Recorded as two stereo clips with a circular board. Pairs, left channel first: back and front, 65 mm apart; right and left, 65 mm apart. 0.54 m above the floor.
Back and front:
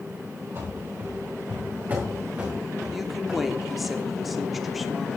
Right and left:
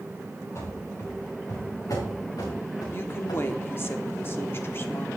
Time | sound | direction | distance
0.6 | running footsteps | 45° right | 5 m
2.9 | a woman speaking | 85° right | 1.0 m